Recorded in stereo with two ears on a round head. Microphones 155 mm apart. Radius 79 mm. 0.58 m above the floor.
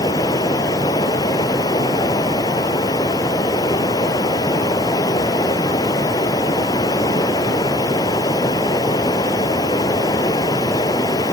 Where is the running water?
20° left (ahead or behind).